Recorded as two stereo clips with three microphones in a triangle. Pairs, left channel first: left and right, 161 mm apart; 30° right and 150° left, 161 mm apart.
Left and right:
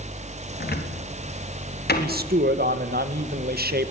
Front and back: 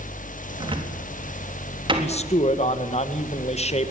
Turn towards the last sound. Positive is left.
turn(degrees=-80)